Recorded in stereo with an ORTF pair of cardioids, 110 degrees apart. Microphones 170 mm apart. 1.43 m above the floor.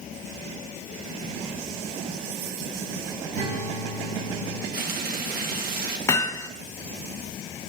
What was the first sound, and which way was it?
A guitar, 45° right.